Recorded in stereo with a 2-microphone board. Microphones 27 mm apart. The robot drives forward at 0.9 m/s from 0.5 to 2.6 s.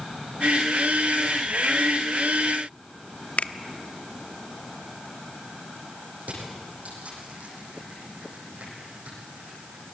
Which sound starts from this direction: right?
Crushing, at 6.2 s.